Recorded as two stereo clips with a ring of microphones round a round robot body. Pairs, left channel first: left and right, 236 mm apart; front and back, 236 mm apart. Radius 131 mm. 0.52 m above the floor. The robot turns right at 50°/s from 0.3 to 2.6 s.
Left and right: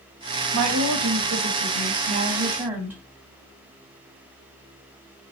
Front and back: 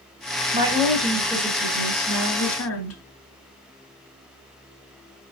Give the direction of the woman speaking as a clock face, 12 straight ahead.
4 o'clock.